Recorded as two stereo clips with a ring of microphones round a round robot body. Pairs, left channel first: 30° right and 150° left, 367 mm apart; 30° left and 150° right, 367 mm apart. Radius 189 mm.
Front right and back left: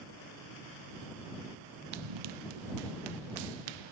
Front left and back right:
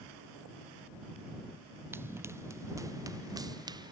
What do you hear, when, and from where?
1.9 s running footsteps: 125° left; by 3.9 s 130° left